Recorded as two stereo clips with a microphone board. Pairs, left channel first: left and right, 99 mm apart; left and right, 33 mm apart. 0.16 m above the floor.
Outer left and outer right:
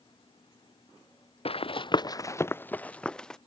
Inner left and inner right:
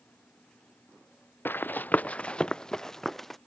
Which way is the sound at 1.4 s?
80° left.